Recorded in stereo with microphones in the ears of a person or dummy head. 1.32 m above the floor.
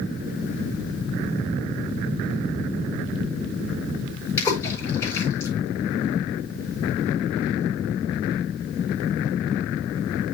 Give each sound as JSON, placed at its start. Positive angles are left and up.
{"t": 4.4, "sound": "a splash", "side_deg": 20, "distance_m": 7.5}